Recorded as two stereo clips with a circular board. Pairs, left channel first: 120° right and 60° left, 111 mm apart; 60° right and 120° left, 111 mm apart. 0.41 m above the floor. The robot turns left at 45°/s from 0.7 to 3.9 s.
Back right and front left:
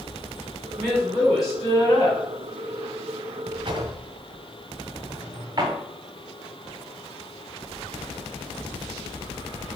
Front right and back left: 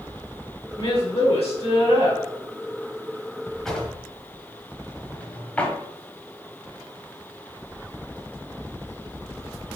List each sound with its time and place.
0.8 s a woman speaking: 30° right, 2.5 m; by 2.2 s 95° right, 2.5 m
3.6 s a drawer: 30° left, 1.1 m; by 5.8 s 20° left, 1.1 m